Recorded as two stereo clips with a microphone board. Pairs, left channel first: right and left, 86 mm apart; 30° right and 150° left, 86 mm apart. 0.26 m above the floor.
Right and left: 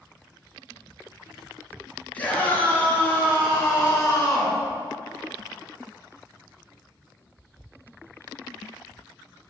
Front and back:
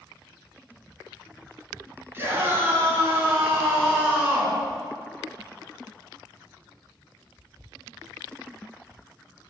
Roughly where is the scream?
Behind right.